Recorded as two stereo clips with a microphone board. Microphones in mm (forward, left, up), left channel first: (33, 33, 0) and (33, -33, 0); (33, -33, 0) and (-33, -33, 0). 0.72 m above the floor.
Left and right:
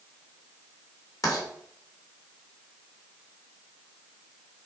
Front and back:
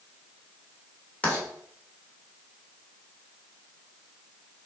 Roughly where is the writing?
Left.